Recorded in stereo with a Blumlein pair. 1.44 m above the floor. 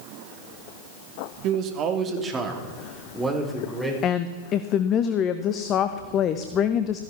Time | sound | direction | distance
1.4 | a man speaking | 40° right | 1.7 m
4.0 | a woman speaking | 30° left | 0.7 m